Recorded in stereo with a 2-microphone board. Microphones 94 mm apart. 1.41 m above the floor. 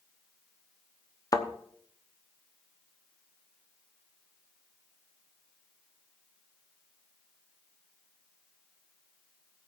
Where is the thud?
40° left (ahead or behind), 1.0 m.